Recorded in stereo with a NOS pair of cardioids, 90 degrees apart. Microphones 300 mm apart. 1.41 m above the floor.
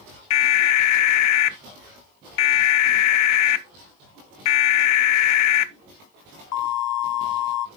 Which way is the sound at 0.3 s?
65° left.